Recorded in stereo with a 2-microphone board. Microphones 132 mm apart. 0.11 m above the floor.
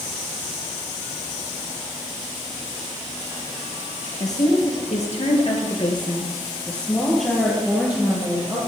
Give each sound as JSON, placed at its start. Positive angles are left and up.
{"t": 4.2, "sound": "a woman speaking", "side_deg": 60, "distance_m": 2.5}